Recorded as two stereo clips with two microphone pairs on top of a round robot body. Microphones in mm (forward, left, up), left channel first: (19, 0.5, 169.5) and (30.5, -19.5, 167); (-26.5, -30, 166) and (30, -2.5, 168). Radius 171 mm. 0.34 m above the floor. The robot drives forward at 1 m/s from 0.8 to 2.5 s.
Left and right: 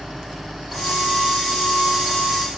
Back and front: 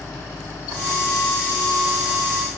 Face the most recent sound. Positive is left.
No sound to turn to.